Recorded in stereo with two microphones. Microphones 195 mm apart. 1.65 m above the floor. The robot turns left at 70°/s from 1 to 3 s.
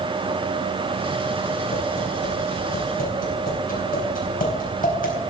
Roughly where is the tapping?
Left.